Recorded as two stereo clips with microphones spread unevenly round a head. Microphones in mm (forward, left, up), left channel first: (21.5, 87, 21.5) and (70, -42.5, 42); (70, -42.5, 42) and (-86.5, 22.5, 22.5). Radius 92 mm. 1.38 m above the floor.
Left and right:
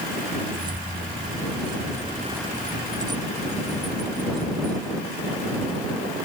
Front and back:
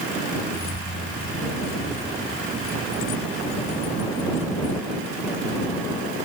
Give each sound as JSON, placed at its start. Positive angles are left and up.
{"t": 0.5, "sound": "keys jangling", "azimuth_deg": -15}